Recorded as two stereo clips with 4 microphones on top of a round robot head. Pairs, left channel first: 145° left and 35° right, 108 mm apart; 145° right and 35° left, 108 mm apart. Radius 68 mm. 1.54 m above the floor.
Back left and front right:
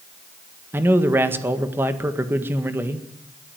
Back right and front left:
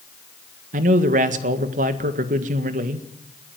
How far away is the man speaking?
About 1.8 m.